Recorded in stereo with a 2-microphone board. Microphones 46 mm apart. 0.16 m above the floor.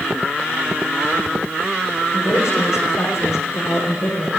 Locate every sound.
2.1 s a woman speaking: 80° left, 8 m